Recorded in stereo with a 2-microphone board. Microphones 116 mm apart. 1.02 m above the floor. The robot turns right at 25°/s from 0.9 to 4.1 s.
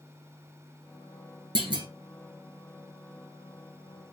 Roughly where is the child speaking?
I don't hear a child speaking.